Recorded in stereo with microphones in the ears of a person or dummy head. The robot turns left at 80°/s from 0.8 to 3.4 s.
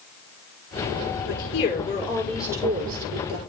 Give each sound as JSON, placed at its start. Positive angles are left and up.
{"t": 1.3, "sound": "a woman speaking", "azimuth_deg": 85, "distance_m": 5.5}